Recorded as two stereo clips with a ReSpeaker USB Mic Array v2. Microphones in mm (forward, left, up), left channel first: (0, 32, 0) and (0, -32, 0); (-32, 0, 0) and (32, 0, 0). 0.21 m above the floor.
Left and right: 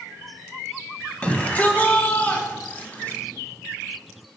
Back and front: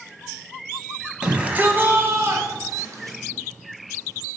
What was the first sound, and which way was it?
A shout, 55° left.